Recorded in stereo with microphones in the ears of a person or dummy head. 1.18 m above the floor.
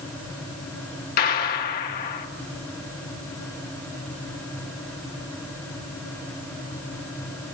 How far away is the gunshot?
About 1.7 m.